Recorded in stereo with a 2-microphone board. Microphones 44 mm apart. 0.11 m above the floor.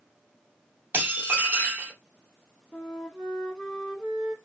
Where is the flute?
5° left (ahead or behind), 2.5 m.